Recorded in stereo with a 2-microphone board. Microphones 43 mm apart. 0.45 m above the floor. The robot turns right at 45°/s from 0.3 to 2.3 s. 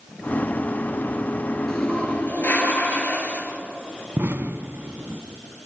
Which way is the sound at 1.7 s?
15° left (ahead or behind).